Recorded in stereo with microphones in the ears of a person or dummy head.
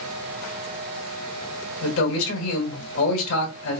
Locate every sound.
1.8 s a man speaking: 70° left (ahead or behind), 1.5 m